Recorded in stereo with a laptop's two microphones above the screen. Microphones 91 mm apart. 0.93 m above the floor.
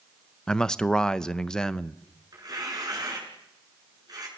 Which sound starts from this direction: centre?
A man speaking, at 0.5 s.